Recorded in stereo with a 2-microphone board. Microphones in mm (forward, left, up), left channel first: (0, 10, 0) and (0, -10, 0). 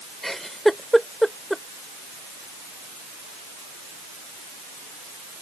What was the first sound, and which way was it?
A giggle, 5° left (ahead or behind).